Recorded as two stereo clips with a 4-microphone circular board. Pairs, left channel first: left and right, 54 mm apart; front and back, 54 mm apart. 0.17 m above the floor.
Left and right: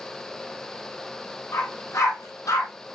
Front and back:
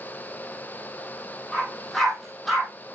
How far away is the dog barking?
About 3 m.